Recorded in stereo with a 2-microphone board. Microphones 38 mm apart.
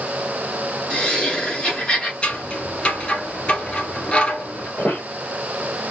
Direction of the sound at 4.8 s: 60° left (ahead or behind).